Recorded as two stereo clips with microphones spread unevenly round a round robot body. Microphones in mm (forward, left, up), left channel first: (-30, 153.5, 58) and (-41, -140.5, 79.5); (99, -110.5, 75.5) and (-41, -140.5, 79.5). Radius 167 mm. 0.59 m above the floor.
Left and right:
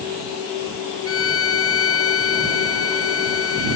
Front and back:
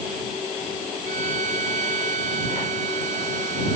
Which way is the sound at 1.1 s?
135° left.